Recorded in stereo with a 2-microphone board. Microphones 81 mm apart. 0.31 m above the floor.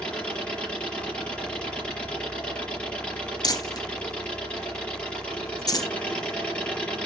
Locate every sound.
0.0 s an engine running: 15° left (ahead or behind), 6.5 m
3.4 s crumpling: 55° left (ahead or behind), 1.3 m